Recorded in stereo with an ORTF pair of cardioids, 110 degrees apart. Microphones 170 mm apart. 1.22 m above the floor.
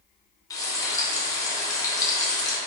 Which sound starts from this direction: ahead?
Frying, at 0.5 s.